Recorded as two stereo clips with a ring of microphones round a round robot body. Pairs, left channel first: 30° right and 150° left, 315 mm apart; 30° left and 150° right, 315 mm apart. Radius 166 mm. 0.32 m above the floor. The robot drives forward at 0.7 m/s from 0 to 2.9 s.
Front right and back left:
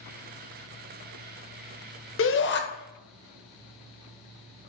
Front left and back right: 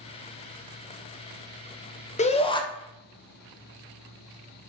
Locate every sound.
2.2 s a shout: 25° right, 1.7 m; by 2.6 s 35° right, 1.6 m